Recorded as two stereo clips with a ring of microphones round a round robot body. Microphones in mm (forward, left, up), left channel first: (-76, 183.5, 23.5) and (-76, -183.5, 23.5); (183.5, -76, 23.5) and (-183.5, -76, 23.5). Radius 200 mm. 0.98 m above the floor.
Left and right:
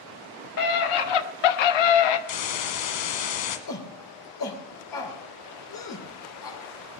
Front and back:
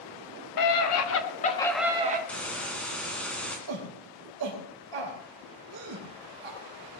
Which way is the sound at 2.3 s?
85° left.